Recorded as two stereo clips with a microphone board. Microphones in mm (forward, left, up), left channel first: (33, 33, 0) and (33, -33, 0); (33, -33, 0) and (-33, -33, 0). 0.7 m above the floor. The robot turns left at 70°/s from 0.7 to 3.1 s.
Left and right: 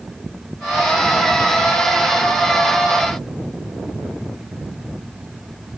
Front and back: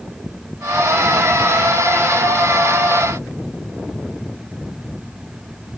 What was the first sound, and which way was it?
Only background noise.